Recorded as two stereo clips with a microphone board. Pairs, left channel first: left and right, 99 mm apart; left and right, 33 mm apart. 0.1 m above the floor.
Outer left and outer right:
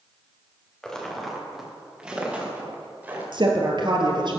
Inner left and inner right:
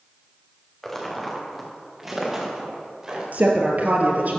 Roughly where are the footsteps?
Centre.